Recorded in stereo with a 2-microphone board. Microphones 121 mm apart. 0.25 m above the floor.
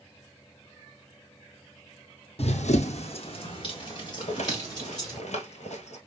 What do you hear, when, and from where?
2.4 s running footsteps: 60° left (ahead or behind), 0.6 m; by 5.2 s 30° left (ahead or behind), 3 m
4.2 s a rattle: 65° left (ahead or behind), 1.2 m